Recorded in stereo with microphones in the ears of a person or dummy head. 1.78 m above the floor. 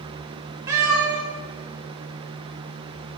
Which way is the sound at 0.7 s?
20° right (ahead or behind).